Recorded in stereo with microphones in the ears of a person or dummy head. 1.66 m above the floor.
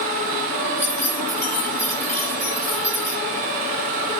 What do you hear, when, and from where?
0.8 s keys jangling: 10° left (ahead or behind), 9 m